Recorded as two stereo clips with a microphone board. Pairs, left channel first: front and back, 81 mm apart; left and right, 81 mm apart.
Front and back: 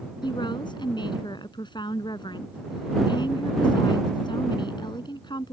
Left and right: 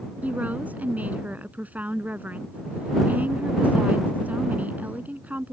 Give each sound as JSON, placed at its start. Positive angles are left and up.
{"t": 0.2, "sound": "a woman speaking", "azimuth_deg": -20}